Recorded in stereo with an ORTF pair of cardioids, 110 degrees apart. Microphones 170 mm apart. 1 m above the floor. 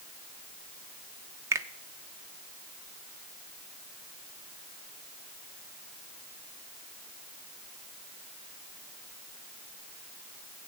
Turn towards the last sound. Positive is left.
turn(degrees=-15)